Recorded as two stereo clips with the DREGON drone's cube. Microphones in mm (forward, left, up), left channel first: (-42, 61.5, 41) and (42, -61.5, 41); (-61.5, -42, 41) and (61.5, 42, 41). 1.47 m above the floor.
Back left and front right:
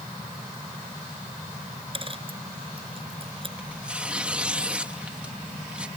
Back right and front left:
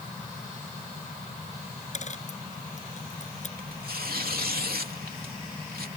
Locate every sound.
1.9 s a dropped coin: 110° right
3.6 s tearing paper: 25° left